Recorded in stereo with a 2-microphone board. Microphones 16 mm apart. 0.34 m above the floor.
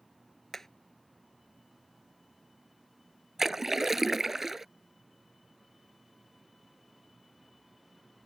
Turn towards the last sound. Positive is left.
turn(degrees=-30)  # may be behind; listen again after turning